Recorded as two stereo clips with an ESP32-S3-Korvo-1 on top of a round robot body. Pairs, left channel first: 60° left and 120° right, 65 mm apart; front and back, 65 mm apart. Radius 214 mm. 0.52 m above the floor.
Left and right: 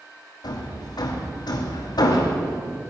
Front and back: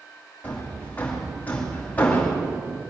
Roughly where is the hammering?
Left.